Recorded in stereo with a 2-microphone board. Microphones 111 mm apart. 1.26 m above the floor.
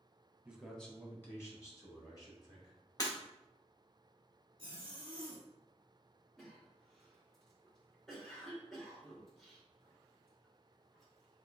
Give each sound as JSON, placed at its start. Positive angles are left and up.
{"t": 0.5, "sound": "a man speaking", "side_deg": -10, "distance_m": 0.8}
{"t": 3.0, "sound": "breaking glass", "side_deg": 35, "distance_m": 1.3}
{"t": 4.6, "sound": "a zipper", "side_deg": -50, "distance_m": 1.7}
{"t": 6.4, "sound": "a cough", "side_deg": 5, "distance_m": 1.5}